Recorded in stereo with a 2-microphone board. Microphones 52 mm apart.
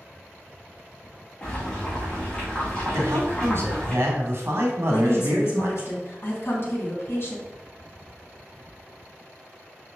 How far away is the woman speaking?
About 3 m.